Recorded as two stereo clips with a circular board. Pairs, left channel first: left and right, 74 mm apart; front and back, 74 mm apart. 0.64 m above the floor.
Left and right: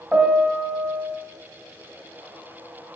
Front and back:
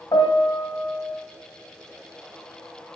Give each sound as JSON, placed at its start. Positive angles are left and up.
{"t": 0.1, "sound": "a piano", "azimuth_deg": -20, "distance_m": 1.4}